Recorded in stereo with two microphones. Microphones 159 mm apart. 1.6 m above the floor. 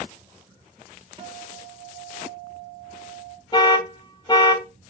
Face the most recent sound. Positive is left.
turn(degrees=30)  # may be behind; listen again after turning